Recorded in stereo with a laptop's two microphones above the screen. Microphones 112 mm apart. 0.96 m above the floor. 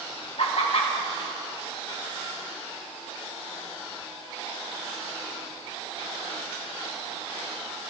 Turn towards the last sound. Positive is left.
turn(degrees=60)  # may be behind; listen again after turning